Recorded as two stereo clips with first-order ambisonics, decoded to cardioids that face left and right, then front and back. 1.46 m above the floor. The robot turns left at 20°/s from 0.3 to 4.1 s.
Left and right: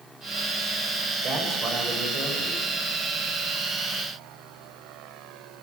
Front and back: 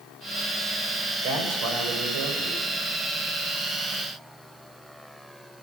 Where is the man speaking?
145° right, 7 m; by 2.6 s 175° right, 7 m.